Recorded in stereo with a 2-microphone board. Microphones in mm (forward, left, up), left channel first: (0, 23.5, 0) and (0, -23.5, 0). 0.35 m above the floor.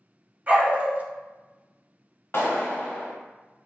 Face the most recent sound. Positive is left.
turn(degrees=55)  # may be behind; listen again after turning